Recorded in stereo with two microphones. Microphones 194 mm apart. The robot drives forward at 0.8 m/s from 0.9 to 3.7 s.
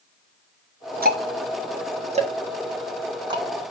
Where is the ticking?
50° right (ahead or behind), 1.1 m; by 3.4 s 20° right (ahead or behind), 2.5 m.